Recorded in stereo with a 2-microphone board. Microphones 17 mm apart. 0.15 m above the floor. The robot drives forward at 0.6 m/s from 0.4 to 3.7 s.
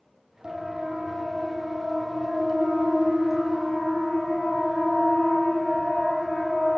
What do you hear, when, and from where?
0.4 s a siren: 50° right (ahead or behind), 5.5 m; by 6.8 s 20° left (ahead or behind), 8 m